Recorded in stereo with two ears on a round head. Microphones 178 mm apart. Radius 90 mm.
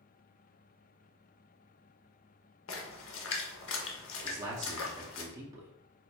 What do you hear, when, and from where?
2.7 s a splash: 70° left (ahead or behind), 0.7 m
4.2 s a man speaking: 20° right (ahead or behind), 0.6 m